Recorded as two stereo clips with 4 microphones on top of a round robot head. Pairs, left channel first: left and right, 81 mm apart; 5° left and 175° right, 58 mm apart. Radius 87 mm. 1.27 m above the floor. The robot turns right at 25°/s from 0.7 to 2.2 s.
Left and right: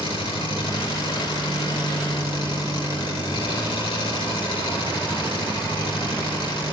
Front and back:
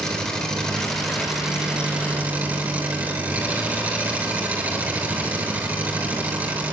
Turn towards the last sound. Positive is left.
turn(degrees=120)